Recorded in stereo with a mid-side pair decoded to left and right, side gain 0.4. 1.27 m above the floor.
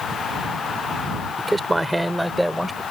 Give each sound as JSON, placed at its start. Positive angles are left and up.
{"t": 1.4, "sound": "a man speaking", "azimuth_deg": -20}